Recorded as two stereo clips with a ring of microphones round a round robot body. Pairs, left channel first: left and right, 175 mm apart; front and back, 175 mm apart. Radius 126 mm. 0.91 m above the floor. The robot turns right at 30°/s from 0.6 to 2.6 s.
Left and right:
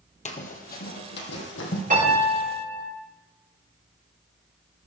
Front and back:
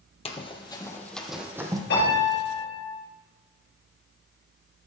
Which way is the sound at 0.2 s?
50° left.